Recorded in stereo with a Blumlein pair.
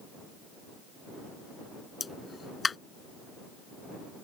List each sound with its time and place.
2.0 s a pop: 15° left